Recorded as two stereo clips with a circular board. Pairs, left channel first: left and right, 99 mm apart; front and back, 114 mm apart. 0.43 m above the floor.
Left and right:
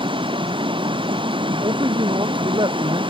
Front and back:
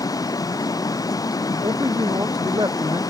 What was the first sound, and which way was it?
Running water, 60° right.